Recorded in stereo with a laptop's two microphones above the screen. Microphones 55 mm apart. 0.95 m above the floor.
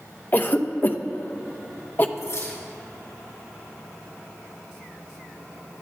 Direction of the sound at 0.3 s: 35° left (ahead or behind).